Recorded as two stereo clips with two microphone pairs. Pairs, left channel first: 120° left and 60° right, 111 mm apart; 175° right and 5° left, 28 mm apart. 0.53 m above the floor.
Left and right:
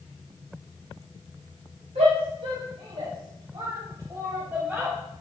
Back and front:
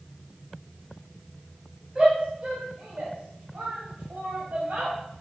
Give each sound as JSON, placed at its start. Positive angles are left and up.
{"t": 1.9, "sound": "a shout", "azimuth_deg": -60, "distance_m": 3.5}